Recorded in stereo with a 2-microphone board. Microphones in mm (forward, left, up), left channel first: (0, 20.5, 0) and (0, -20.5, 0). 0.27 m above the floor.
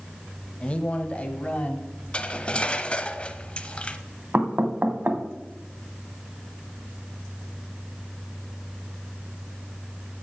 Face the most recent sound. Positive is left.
turn(degrees=-45)  # may be behind; listen again after turning